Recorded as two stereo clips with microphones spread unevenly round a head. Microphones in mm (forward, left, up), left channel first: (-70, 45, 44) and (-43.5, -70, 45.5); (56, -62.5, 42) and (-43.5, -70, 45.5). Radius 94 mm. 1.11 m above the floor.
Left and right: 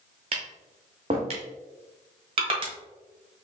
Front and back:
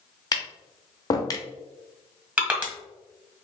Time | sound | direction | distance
0.3 | tapping | 35° right | 0.7 m
2.4 | crushing | 105° right | 1.3 m